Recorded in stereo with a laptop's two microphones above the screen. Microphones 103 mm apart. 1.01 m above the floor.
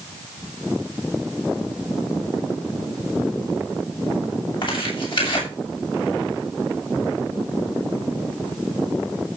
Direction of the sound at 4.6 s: 55° left (ahead or behind).